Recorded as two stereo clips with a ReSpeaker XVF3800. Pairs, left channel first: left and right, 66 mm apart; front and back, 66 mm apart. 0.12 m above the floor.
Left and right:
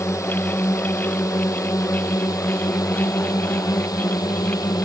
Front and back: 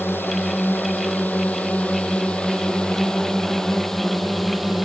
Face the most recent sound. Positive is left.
turn(degrees=95)